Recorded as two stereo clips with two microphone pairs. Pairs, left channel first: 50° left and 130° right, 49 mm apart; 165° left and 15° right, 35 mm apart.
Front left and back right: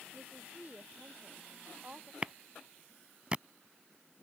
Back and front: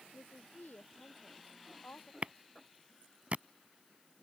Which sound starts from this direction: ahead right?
A clap, at 2.2 s.